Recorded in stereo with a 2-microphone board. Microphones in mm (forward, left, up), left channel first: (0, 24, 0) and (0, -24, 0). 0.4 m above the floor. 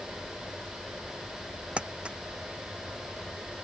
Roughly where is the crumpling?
Centre.